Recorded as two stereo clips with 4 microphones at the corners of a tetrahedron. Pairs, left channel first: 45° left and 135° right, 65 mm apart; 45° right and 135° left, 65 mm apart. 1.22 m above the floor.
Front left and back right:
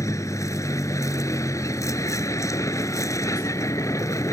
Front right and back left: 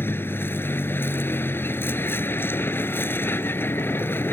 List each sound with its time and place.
0.0 s a vehicle: 10° left